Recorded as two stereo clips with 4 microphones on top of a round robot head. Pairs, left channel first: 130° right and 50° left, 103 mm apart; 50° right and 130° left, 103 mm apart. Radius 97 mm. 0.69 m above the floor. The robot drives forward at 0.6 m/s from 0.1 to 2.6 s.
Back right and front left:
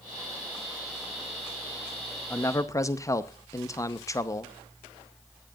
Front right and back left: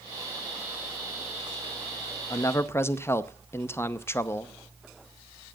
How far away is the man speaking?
About 0.8 m.